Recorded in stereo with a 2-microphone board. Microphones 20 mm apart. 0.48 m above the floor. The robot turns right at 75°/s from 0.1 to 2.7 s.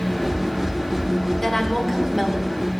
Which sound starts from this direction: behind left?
A woman speaking, at 1.4 s.